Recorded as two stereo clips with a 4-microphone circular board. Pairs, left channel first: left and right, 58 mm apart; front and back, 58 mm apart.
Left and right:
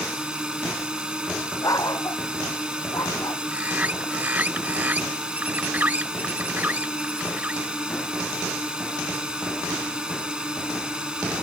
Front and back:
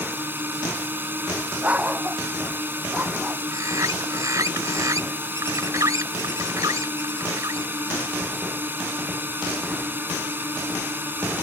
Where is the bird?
155° right.